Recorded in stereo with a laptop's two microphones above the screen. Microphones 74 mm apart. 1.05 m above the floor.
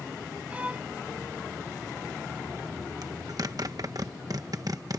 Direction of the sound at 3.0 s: 55° right (ahead or behind).